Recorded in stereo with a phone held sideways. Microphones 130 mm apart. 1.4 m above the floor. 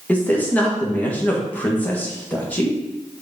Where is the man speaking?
10° left (ahead or behind), 1.8 m.